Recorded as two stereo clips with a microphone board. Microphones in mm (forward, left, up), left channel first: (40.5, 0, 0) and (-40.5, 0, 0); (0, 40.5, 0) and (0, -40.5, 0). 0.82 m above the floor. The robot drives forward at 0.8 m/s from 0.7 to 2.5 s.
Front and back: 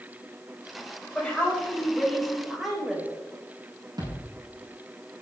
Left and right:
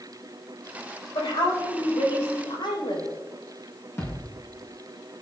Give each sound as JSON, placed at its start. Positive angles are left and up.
{"t": 1.1, "sound": "a woman speaking", "azimuth_deg": 75, "distance_m": 4.0}
{"t": 4.0, "sound": "a thud", "azimuth_deg": 150, "distance_m": 5.5}